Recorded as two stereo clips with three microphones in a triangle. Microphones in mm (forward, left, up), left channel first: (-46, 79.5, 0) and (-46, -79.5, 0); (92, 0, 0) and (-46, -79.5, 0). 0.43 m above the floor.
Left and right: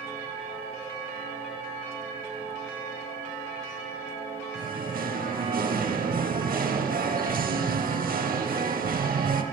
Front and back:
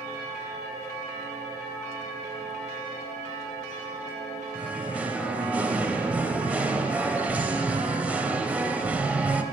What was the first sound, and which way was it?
Singing, 70° right.